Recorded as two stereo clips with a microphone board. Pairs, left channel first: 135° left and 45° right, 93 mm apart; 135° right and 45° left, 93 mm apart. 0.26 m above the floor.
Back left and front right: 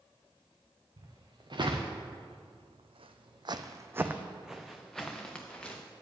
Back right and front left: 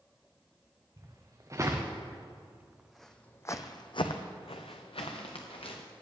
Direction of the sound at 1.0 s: 5° right.